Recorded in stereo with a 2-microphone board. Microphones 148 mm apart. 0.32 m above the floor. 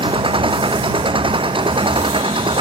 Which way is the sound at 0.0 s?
35° right (ahead or behind).